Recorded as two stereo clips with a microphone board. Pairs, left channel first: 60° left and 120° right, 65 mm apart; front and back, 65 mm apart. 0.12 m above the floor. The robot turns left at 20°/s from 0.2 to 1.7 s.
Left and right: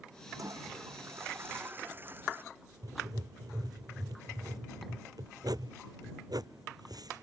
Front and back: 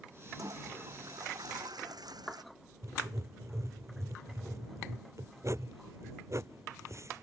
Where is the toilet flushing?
150° right; by 2.4 s 175° right.